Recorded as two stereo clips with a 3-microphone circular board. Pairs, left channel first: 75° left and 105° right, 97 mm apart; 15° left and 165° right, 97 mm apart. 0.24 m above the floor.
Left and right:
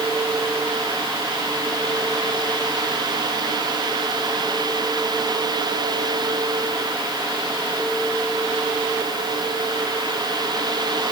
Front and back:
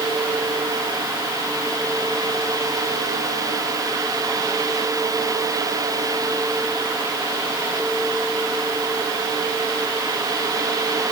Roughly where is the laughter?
I don't hear laughter.